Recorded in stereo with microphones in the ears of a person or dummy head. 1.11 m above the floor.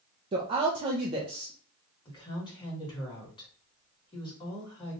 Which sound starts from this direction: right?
A woman speaking, at 0.3 s.